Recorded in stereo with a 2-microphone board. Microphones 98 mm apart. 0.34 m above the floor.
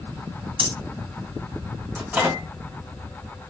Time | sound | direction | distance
0.6 | breathing | 65° right (ahead or behind) | 2 m
1.9 | a microwave | 20° right (ahead or behind) | 2.0 m